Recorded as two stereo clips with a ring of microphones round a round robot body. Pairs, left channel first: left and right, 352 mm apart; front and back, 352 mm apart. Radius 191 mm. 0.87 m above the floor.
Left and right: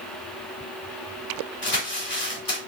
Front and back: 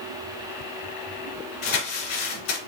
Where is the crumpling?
30° left, 2.5 m.